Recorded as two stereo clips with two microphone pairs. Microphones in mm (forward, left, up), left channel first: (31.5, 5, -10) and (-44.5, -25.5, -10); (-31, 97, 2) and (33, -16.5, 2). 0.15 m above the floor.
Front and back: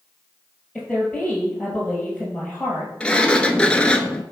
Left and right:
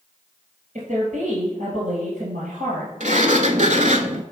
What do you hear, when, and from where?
0.8 s a woman speaking: 70° right, 2 m
3.0 s a sliding door: 55° right, 0.6 m